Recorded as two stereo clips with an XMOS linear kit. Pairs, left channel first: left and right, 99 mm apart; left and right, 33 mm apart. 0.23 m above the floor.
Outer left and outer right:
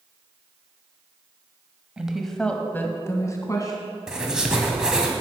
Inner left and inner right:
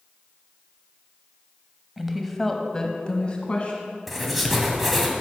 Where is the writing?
5° right (ahead or behind), 1.6 m.